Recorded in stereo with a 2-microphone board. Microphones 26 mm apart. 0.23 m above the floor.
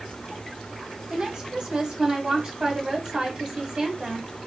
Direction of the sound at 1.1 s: 30° right (ahead or behind).